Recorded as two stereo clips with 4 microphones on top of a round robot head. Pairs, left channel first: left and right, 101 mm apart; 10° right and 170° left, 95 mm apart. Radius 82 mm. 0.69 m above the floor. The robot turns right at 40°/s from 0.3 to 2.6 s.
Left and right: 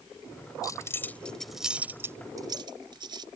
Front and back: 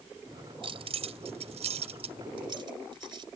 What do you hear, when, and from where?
0.6 s keys jangling: 145° left; by 3.3 s 135° right